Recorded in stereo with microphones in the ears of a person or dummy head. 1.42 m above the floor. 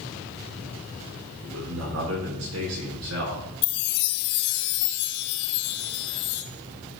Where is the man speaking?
85° right, 5.5 m; by 3.5 s 80° right, 5 m.